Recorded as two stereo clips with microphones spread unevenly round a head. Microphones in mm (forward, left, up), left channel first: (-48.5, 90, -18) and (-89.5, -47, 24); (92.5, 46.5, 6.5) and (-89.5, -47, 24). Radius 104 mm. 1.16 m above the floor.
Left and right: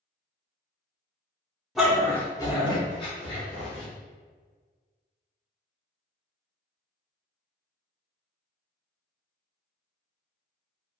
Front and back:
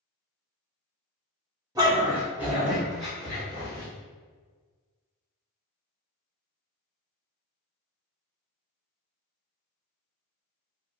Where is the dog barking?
135° right, 0.7 m; by 3.9 s 110° left, 1.2 m.